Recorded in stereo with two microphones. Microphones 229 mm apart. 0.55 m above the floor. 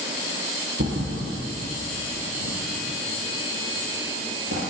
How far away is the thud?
About 2 m.